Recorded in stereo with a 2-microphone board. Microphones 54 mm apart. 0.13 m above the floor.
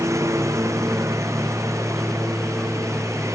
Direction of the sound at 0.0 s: 70° right (ahead or behind).